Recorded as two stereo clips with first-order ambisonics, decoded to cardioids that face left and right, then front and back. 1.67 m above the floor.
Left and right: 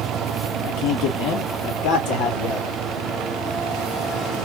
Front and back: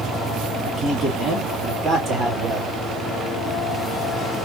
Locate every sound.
0.6 s a man speaking: 85° left, 2.5 m; by 2.8 s 120° left, 2 m